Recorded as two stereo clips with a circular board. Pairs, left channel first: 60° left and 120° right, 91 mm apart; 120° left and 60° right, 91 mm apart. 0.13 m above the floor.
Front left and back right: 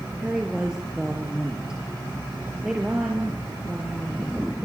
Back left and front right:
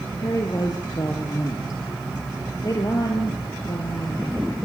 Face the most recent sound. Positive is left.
turn(degrees=160)